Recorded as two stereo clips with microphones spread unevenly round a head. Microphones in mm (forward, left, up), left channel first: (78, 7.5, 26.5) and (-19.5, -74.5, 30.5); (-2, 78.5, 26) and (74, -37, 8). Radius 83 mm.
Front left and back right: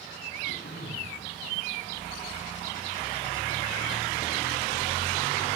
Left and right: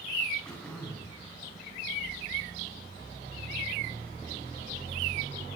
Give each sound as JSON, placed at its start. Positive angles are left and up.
{"t": 0.5, "sound": "throat clearing", "azimuth_deg": 40, "distance_m": 9.5}